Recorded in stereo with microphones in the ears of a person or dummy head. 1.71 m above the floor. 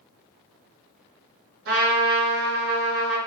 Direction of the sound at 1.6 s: 70° right (ahead or behind).